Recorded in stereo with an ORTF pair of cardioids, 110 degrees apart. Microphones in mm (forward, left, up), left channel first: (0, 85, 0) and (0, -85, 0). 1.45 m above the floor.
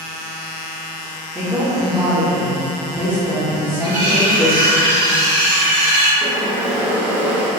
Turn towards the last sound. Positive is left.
turn(degrees=-10)